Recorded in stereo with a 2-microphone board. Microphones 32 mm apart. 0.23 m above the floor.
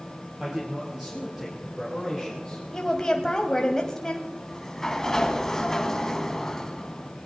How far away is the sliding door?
About 1.5 m.